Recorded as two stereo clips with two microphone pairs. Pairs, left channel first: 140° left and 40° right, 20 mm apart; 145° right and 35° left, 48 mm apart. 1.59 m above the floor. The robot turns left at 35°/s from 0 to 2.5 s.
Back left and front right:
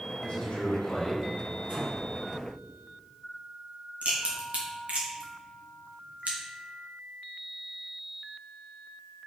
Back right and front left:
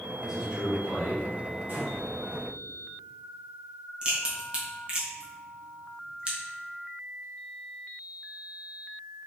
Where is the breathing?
5° right, 2.5 m; by 2.5 s 30° right, 2.5 m.